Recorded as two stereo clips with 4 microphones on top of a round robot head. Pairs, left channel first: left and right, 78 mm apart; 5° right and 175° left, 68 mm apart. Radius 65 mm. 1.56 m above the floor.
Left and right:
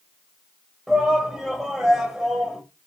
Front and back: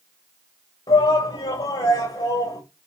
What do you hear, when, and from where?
0.9 s a shout: 5° right, 1.8 m